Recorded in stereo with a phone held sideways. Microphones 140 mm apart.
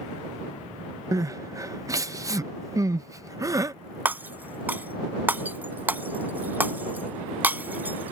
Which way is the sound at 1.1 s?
25° right (ahead or behind).